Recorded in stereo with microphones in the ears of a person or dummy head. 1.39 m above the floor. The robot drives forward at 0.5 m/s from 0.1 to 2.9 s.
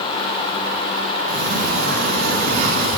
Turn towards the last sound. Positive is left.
turn(degrees=-45)  # may be behind; listen again after turning